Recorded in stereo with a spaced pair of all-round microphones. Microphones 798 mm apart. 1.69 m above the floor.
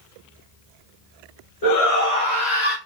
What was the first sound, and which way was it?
A shout, 45° left (ahead or behind).